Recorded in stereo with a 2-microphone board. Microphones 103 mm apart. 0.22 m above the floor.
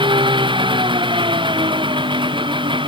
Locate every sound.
0.0 s an engine running: 55° right (ahead or behind)